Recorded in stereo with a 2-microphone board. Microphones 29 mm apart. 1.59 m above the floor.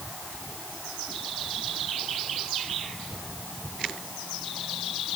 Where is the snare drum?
No snare drum in this recording.